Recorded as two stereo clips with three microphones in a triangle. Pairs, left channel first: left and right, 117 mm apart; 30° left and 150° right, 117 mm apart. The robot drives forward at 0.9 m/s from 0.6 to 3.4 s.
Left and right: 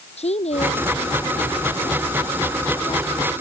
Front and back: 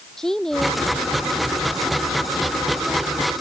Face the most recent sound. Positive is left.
turn(degrees=125)